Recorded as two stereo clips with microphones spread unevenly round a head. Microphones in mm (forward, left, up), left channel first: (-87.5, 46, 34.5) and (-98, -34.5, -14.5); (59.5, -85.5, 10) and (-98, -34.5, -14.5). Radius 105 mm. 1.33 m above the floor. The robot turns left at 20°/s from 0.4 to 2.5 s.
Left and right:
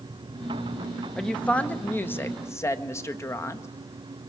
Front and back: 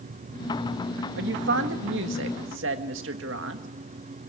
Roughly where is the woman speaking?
Behind.